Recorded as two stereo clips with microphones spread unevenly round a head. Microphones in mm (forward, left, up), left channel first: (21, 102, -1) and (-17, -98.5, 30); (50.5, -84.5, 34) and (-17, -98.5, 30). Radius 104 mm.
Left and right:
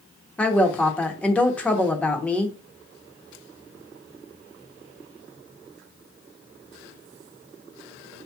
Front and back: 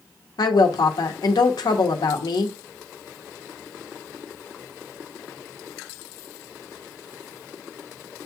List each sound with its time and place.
0.4 s a woman speaking: straight ahead, 0.8 m